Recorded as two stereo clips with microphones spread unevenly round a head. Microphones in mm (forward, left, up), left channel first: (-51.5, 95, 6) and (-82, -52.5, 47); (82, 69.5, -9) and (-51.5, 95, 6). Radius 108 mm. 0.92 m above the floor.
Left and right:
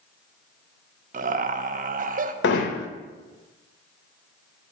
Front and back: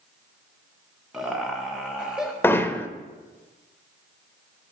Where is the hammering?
65° left, 0.9 m.